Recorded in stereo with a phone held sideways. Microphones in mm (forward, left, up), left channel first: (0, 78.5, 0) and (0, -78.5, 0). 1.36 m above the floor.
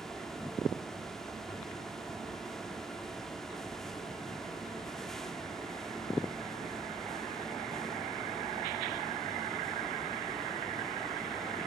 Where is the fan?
Centre (ahead or behind), 1.4 m.